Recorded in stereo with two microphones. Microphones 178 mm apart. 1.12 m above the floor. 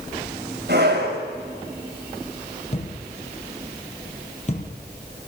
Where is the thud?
40° left (ahead or behind), 4.5 m.